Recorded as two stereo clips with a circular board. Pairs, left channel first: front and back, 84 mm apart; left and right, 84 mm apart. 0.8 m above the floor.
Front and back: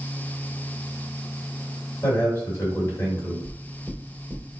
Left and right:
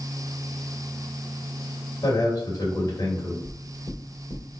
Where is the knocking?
95° left, 1.3 m.